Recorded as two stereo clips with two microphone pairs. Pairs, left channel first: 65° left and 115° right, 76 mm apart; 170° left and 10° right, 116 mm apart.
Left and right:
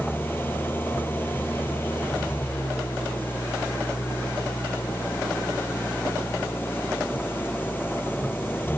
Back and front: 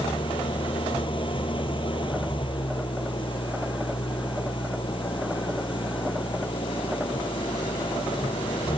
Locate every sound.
0.0 s an engine running: 125° left